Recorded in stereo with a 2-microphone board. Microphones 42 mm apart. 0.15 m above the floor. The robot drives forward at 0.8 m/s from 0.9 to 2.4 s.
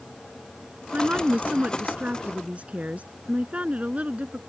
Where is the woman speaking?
40° right (ahead or behind); by 4.4 s 35° right (ahead or behind).